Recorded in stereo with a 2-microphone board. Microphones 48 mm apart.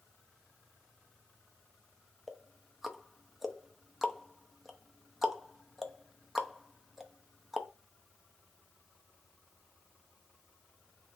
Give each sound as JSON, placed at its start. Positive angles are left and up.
{"t": 2.3, "sound": "ticking", "side_deg": -5, "distance_m": 0.6}